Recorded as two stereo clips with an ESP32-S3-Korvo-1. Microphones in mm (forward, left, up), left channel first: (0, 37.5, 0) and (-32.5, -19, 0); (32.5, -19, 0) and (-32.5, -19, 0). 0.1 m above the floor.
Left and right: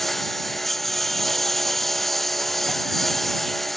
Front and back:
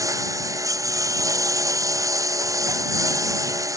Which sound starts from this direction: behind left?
A lawn mower, at 0.0 s.